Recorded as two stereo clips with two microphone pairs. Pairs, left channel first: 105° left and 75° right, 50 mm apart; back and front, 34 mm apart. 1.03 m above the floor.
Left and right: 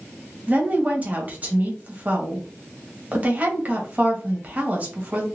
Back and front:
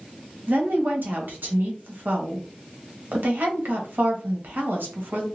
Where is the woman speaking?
15° right, 1.1 m.